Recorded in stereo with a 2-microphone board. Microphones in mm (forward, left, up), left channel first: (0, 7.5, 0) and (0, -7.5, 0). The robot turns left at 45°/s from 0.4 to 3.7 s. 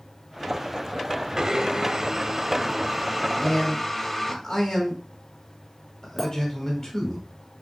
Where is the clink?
15° left (ahead or behind), 2.5 m.